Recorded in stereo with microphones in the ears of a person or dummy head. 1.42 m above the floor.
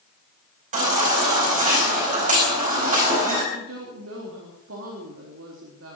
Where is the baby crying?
50° right (ahead or behind), 4 m.